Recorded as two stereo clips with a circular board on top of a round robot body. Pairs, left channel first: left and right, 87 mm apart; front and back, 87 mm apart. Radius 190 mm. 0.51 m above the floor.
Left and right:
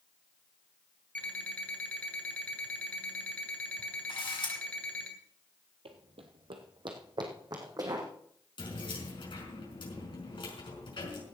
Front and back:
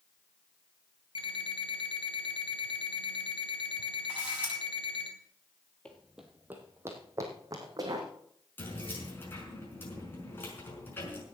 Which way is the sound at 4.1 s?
105° left.